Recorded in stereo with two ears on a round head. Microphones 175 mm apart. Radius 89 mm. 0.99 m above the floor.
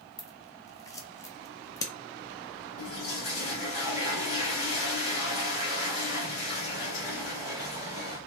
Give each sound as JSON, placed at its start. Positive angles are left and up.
{"t": 0.2, "sound": "scissors", "side_deg": 15, "distance_m": 0.6}
{"t": 2.8, "sound": "a toilet flushing", "side_deg": 85, "distance_m": 2.0}